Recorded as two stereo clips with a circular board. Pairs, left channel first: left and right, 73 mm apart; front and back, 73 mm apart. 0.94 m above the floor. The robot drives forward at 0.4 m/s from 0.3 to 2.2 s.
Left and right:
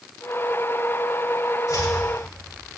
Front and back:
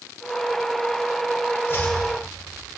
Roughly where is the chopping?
Ahead left.